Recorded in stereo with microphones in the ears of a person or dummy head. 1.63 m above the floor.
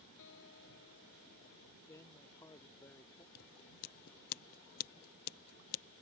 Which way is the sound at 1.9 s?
15° left (ahead or behind).